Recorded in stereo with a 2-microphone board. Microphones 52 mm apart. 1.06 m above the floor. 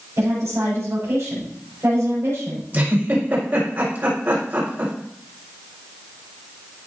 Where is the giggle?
40° right (ahead or behind), 4.5 m.